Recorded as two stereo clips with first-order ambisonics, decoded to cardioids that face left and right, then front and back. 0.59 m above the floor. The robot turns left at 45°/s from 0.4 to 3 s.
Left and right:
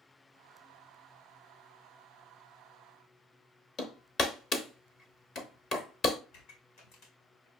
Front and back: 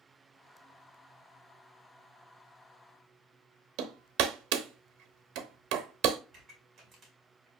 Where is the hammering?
155° left, 0.8 m.